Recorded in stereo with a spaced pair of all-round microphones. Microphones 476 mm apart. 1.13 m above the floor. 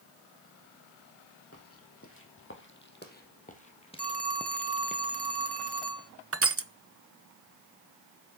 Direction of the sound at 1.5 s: 30° left (ahead or behind).